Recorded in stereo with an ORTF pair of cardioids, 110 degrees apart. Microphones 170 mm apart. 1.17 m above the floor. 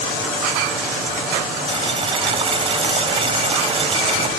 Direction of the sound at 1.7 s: 35° right.